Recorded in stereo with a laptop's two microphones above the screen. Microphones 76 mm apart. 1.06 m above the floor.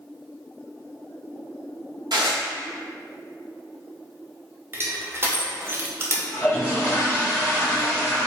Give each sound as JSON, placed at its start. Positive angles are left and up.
{"t": 2.1, "sound": "dishes clattering", "side_deg": -75, "distance_m": 0.6}
{"t": 4.7, "sound": "crushing", "side_deg": -30, "distance_m": 0.7}
{"t": 6.3, "sound": "a toilet flushing", "side_deg": 25, "distance_m": 1.5}